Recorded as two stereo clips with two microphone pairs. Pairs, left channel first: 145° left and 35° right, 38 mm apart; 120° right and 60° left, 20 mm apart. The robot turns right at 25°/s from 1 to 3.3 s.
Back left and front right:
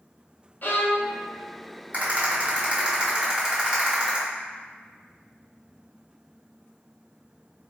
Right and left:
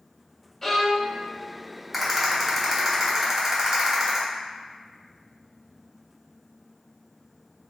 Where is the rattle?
15° right, 1.1 m; by 4.2 s 20° left, 1.1 m.